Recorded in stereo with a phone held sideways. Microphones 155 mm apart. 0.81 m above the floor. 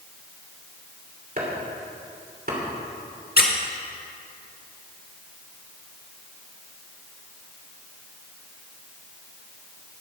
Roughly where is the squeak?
Left.